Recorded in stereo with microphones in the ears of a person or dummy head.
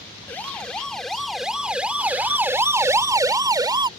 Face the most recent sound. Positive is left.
turn(degrees=-15)  # may be behind; listen again after turning